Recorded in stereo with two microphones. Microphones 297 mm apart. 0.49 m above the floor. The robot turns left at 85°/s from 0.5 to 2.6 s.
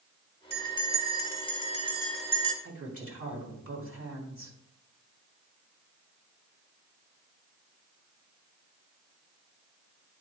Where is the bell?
145° left, 1.7 m; by 2.5 s 30° right, 1.7 m.